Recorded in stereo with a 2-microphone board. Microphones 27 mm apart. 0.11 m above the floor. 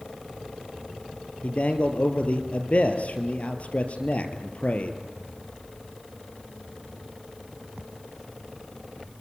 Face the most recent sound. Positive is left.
turn(degrees=55)  # may be behind; listen again after turning